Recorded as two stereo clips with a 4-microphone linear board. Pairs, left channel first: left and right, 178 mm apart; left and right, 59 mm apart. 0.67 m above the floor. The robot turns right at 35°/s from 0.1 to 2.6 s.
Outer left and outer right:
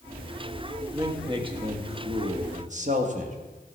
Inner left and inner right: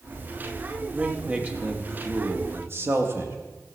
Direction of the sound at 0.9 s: 155° right.